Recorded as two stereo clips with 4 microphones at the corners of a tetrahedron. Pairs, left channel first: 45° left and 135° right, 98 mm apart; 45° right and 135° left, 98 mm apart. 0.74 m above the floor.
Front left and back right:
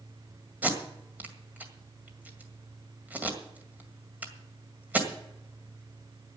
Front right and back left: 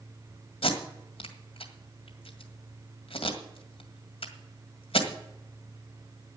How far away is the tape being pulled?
About 1.9 m.